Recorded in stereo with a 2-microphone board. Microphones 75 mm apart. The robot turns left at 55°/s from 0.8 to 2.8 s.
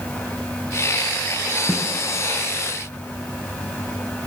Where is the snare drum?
20° right (ahead or behind), 1.4 m; by 1.9 s 5° right (ahead or behind), 1.4 m.